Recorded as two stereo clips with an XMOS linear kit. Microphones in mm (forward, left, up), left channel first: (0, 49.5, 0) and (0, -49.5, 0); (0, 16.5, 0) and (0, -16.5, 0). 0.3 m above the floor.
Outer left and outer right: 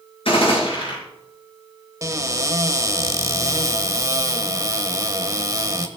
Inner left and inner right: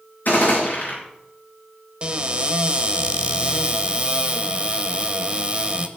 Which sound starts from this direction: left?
A gunshot, at 0.2 s.